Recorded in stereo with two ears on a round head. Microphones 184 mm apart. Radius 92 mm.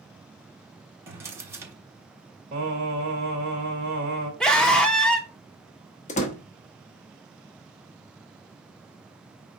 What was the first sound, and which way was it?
A drawer, 15° right (ahead or behind).